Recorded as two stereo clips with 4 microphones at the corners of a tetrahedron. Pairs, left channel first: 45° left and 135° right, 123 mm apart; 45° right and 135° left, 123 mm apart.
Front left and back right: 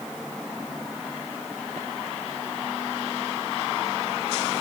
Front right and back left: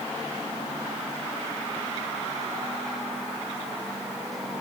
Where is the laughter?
No laughter in this recording.